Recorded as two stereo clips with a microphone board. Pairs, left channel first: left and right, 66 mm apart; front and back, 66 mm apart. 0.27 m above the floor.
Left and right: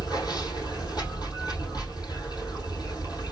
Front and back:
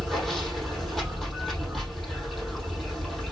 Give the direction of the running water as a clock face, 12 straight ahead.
9 o'clock.